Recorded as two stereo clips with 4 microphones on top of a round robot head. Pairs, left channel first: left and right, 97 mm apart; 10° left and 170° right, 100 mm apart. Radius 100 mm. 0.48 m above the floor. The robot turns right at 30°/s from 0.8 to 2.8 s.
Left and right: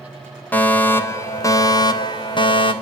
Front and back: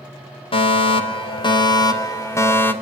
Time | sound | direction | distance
0.5 | a fire alarm | 20° left | 3.5 m